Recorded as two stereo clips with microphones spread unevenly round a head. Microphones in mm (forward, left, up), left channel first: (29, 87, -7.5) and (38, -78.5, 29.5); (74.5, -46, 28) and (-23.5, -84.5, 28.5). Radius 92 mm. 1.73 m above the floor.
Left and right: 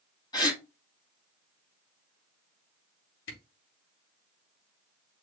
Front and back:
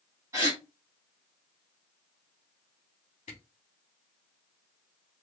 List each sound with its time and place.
0.3 s a gasp: 165° left, 1.2 m
3.3 s a camera shutter: 80° left, 3.5 m